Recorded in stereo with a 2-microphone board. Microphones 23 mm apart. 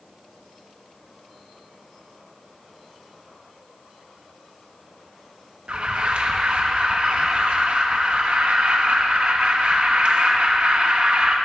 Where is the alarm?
50° right (ahead or behind), 1.1 m.